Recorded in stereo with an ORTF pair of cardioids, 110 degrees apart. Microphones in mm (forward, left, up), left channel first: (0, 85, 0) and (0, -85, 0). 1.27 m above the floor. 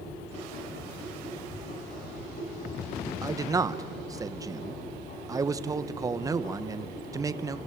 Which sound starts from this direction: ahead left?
A machine running, at 0.0 s.